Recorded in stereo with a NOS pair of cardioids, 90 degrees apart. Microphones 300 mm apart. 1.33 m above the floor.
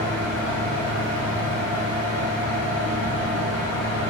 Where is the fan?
55° left, 0.9 m.